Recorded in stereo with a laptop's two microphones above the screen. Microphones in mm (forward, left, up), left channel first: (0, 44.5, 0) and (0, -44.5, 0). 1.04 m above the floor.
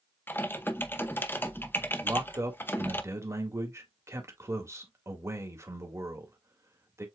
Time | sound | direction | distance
0.3 | typing on a keyboard | 25° left (ahead or behind) | 0.7 m
2.0 | a man speaking | 30° right (ahead or behind) | 1.7 m